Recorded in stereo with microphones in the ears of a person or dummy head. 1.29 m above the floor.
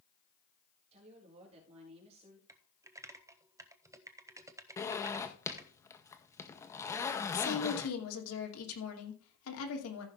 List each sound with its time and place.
0.9 s a woman speaking: 35° right (ahead or behind), 3.5 m
2.5 s typing on a keyboard: 15° right (ahead or behind), 0.6 m
4.8 s a zipper: 15° left (ahead or behind), 0.9 m
7.3 s a woman speaking: 85° left, 2.5 m